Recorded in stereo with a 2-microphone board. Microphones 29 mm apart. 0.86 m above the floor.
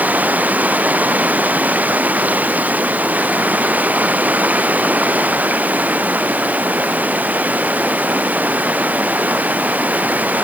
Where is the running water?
75° right (ahead or behind).